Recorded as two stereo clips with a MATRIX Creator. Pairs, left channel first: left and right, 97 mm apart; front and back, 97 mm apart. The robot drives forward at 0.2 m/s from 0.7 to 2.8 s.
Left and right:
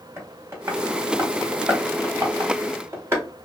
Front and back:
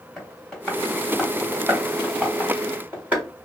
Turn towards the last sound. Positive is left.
turn(degrees=-125)